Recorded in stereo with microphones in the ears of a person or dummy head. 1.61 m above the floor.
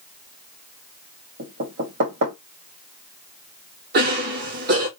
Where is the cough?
50° right (ahead or behind), 1.3 m.